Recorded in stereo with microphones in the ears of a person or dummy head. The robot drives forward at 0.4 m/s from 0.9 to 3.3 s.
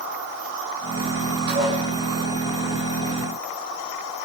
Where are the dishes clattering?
55° right (ahead or behind), 4.5 m.